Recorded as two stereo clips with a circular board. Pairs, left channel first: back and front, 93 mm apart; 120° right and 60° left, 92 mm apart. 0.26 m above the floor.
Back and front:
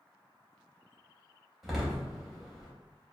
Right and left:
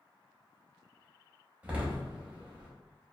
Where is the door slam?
85° left, 0.8 m.